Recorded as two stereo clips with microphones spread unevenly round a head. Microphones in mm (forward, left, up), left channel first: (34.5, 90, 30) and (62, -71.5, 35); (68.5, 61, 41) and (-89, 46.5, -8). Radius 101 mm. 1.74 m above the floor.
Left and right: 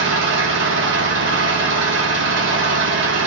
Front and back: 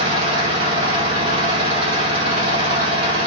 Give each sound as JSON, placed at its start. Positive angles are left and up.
{"t": 0.0, "sound": "an engine running", "azimuth_deg": -105, "distance_m": 1.6}